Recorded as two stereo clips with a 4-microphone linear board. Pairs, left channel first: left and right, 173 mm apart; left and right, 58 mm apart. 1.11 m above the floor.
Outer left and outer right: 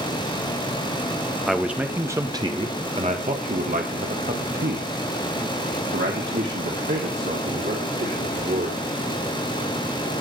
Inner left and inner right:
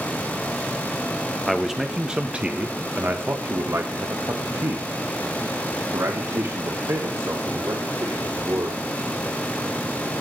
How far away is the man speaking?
About 1.4 m.